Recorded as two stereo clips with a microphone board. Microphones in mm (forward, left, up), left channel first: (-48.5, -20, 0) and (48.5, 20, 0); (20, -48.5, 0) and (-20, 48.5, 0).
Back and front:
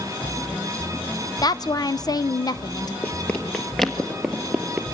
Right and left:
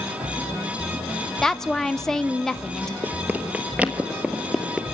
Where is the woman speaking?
150° right, 0.6 m.